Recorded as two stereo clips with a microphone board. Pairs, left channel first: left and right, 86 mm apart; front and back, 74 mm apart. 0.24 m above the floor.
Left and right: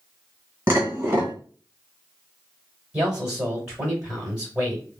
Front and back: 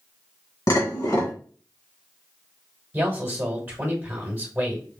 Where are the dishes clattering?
25° right, 1.7 m.